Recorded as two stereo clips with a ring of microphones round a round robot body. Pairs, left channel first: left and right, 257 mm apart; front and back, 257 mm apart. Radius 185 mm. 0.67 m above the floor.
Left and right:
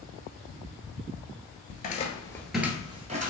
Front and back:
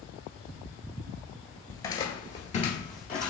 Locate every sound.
1.7 s footsteps: 70° left, 0.7 m; by 3.3 s 50° right, 0.8 m